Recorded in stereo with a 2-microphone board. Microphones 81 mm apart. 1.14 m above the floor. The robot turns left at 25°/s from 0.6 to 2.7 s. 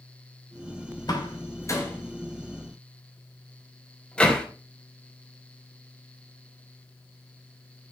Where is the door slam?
50° left (ahead or behind), 4 m; by 4.5 s 10° left (ahead or behind), 4 m.